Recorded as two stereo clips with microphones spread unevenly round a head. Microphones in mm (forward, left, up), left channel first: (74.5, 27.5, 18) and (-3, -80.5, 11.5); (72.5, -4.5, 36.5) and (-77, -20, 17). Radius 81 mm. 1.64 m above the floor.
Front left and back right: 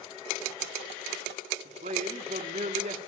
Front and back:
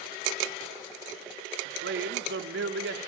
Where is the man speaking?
Straight behind, 5 m.